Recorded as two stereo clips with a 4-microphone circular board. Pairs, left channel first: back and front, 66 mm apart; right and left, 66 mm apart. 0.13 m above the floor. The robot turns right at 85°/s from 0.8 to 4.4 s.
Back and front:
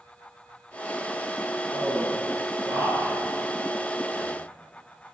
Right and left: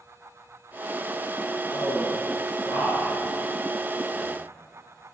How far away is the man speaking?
About 1.4 m.